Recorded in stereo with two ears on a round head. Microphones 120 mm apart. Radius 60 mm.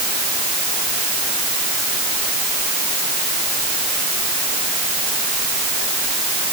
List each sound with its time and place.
Only background noise.